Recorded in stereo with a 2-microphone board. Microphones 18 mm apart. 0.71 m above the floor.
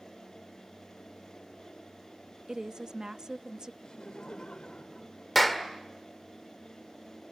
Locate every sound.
2.5 s a woman speaking: 40° right (ahead or behind), 0.6 m
3.8 s laughter: 55° left (ahead or behind), 2.5 m
5.3 s a clap: 5° left (ahead or behind), 1.8 m